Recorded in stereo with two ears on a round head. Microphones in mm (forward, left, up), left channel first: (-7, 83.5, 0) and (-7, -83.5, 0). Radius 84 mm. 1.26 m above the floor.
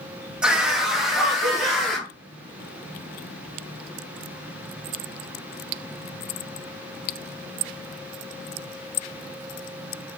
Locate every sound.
0.4 s a scream: 5° right (ahead or behind), 2.0 m; by 2.1 s centre (ahead or behind), 3.5 m